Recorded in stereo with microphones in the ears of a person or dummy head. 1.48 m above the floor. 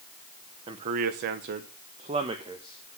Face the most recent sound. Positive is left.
turn(degrees=-25)  # may be behind; listen again after turning